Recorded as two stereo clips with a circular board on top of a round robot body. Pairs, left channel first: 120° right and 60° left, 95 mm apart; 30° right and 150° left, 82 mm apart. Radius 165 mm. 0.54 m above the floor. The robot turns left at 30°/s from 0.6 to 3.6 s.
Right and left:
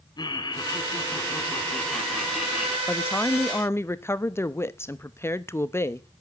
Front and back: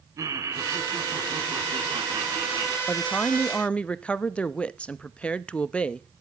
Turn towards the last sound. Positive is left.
turn(degrees=-90)